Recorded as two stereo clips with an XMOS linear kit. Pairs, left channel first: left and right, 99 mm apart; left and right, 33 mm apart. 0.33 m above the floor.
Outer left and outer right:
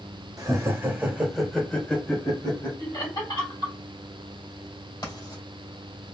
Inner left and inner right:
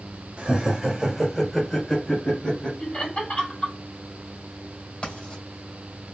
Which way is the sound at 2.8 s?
45° left (ahead or behind).